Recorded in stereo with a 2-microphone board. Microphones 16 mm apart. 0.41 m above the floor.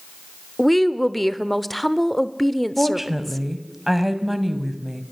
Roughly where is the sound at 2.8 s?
Centre.